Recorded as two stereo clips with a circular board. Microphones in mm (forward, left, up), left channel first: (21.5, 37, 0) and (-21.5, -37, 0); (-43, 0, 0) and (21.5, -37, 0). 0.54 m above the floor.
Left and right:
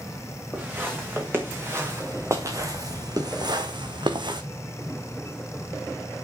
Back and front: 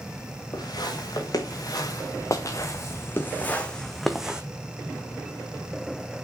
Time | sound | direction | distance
0.5 | footsteps | 175° left | 4 m